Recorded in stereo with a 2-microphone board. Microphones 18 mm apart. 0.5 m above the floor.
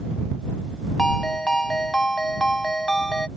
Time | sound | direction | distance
1.0 | a ringtone | 50° left (ahead or behind) | ?